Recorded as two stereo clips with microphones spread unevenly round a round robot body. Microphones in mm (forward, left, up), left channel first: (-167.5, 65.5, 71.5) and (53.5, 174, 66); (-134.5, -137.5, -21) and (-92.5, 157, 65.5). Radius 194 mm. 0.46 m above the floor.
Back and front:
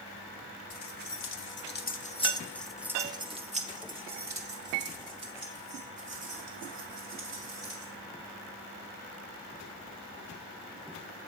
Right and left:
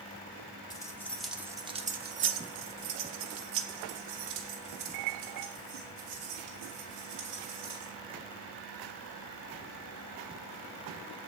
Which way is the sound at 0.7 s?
165° right.